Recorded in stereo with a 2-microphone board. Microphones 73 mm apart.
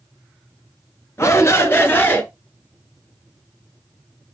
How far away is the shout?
About 2.5 m.